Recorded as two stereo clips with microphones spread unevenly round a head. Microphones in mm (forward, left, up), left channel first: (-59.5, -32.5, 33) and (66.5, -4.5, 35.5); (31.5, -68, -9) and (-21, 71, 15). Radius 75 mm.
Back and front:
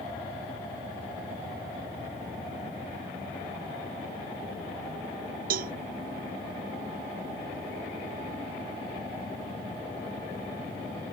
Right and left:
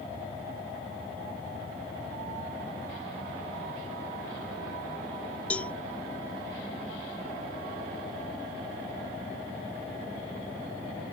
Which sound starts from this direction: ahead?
A cowbell, at 5.5 s.